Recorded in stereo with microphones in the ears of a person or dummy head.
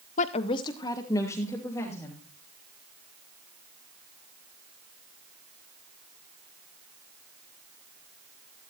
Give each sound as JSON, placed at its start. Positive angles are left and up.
{"t": 0.2, "sound": "a woman speaking", "side_deg": 40, "distance_m": 0.6}